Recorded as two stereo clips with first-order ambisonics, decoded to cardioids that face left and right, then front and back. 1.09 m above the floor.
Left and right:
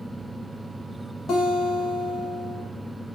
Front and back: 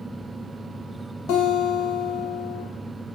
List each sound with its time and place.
1.3 s a guitar: 30° left, 0.5 m